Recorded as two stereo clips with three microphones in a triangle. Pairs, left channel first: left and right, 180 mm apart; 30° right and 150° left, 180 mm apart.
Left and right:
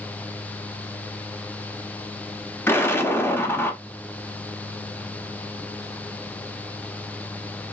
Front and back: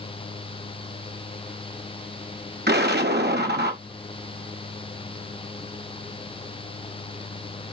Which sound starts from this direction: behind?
An explosion, at 2.7 s.